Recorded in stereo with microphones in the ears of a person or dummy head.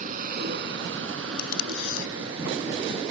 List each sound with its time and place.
0.0 s a vehicle: 50° right (ahead or behind); by 3.1 s 65° right (ahead or behind)
1.4 s tape being pulled: 55° left (ahead or behind)